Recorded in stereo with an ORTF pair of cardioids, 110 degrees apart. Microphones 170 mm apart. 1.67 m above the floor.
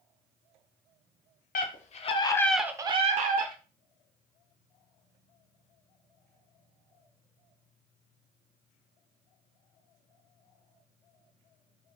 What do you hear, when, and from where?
1.6 s a scream: 55° left, 1.0 m; by 3.5 s 60° right, 0.9 m